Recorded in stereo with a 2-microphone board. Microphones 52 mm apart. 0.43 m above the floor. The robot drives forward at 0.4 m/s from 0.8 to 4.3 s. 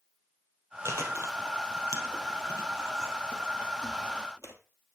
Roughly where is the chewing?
Right.